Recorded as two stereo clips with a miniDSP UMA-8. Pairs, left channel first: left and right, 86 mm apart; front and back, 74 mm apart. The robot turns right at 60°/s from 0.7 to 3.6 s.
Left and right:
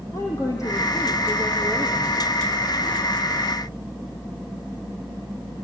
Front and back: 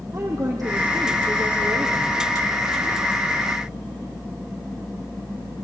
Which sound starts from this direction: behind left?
A woman speaking, at 0.1 s.